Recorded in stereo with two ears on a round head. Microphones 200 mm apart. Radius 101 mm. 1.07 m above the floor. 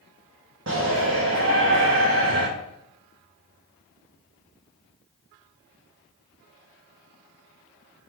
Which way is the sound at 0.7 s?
55° right (ahead or behind).